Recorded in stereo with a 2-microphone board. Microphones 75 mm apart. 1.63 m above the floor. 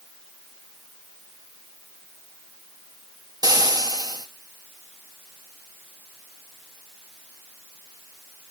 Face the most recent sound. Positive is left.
turn(degrees=-60)  # may be behind; listen again after turning